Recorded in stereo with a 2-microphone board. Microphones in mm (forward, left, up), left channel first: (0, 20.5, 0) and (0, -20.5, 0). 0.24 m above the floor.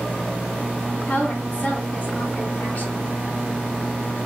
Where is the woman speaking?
35° left (ahead or behind), 2 m.